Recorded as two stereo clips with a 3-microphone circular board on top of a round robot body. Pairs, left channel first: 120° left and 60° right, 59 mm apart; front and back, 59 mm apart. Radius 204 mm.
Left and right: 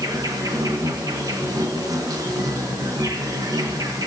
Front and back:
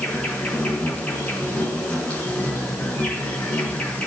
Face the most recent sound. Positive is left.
turn(degrees=-70)